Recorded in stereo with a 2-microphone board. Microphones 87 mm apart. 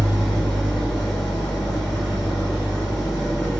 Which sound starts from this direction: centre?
An engine running, at 0.0 s.